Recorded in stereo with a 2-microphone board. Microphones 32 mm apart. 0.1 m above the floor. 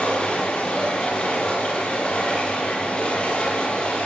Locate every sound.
0.0 s running water: 30° left (ahead or behind), 9.5 m